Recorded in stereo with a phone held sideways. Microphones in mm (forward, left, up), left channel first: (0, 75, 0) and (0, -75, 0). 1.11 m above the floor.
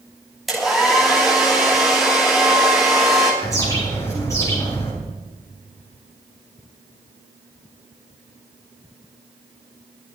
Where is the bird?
20° left (ahead or behind), 7.5 m.